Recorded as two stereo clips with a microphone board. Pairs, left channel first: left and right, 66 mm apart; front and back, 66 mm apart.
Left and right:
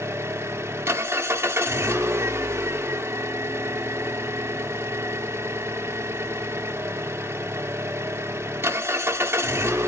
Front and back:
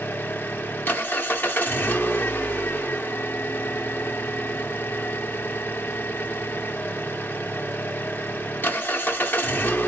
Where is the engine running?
55° right, 1.0 m.